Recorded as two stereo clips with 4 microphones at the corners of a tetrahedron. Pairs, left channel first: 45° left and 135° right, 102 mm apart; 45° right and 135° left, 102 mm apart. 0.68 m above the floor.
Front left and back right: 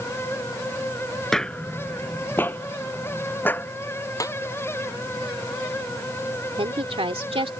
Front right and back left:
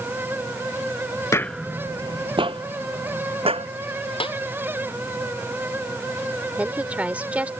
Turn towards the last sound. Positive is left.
turn(degrees=-150)